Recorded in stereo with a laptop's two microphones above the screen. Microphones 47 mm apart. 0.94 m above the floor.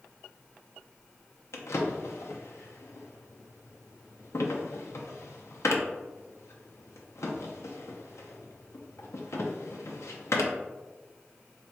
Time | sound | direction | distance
1.5 | a drawer | 75° left (ahead or behind) | 0.5 m